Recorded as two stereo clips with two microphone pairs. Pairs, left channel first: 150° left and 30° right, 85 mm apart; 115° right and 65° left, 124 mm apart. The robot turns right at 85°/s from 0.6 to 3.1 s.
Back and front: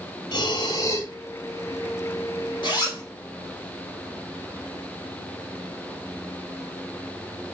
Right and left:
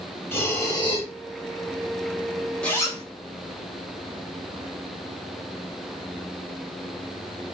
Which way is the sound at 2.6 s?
165° left.